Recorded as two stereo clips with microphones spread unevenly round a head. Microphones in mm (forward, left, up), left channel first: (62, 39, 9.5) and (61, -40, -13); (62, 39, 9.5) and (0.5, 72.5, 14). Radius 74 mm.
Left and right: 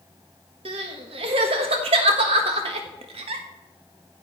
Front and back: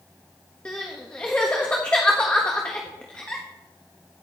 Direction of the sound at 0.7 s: 110° right.